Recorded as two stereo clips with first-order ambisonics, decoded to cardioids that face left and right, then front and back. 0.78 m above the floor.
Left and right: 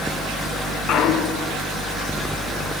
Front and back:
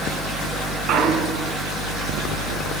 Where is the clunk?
140° left, 2 m.